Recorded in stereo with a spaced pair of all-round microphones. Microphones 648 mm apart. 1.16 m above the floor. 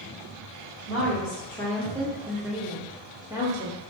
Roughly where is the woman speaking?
Centre.